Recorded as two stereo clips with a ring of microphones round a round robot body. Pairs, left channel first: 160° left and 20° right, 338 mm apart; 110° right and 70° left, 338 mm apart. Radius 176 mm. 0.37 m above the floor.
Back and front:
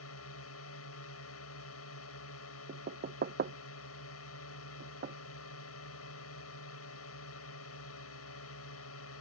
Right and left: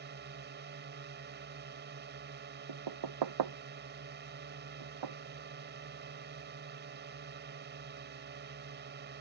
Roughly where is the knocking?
Ahead left.